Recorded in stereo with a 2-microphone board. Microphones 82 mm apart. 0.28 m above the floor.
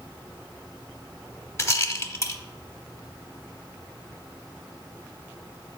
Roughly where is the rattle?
Left.